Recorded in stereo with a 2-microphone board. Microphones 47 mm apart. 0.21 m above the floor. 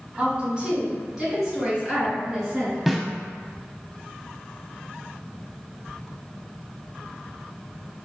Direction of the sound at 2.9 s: Centre (ahead or behind).